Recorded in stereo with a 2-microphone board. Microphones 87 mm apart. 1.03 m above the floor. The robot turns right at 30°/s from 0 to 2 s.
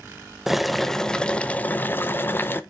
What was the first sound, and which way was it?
Boiling, 5° right.